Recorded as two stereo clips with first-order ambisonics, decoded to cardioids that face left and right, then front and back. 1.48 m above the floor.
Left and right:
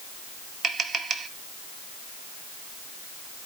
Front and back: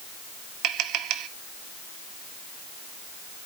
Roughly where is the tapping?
Behind right.